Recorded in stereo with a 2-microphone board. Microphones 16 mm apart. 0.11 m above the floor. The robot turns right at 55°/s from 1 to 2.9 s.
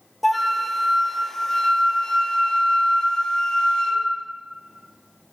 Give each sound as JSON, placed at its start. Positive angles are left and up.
{"t": 0.2, "sound": "a flute", "azimuth_deg": 0, "distance_m": 1.1}